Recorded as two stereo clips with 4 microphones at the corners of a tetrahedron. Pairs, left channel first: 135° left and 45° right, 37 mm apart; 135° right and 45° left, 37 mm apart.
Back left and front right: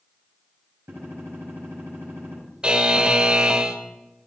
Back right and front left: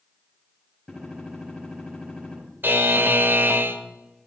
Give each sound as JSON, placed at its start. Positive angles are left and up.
{"t": 0.9, "sound": "a gunshot", "azimuth_deg": -60, "distance_m": 6.5}
{"t": 2.6, "sound": "a buzzer", "azimuth_deg": 20, "distance_m": 1.0}